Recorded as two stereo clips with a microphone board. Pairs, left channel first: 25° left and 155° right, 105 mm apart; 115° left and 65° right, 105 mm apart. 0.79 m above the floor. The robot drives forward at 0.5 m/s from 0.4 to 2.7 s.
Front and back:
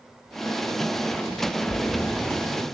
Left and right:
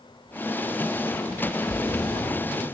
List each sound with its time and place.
1.7 s a splash: 55° left, 0.5 m; by 2.8 s 135° left, 0.5 m